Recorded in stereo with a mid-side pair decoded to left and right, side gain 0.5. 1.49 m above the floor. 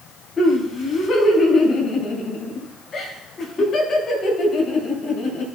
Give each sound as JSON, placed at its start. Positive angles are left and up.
{"t": 0.4, "sound": "laughter", "azimuth_deg": 40, "distance_m": 5.0}